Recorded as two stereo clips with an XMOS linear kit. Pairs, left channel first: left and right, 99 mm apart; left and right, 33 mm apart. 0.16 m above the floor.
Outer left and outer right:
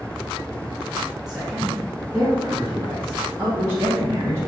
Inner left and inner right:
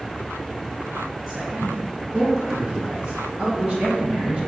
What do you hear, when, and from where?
1.3 s a man speaking: 5° right (ahead or behind), 4 m; by 4.4 s 25° right (ahead or behind), 6.5 m